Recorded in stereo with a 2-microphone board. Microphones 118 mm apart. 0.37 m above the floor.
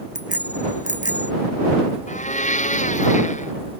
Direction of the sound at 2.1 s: 75° left (ahead or behind).